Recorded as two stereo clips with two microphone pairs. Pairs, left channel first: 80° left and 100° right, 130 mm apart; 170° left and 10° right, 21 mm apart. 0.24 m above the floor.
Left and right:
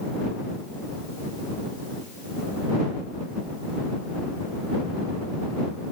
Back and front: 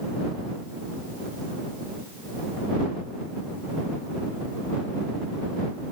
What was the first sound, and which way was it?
Only background noise.